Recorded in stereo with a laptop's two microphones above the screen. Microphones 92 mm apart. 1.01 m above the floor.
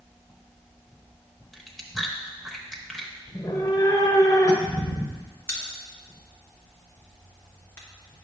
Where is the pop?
25° left (ahead or behind), 1.2 m.